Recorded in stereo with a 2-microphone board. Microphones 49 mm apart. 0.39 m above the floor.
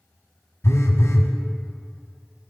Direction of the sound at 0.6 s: 60° left (ahead or behind).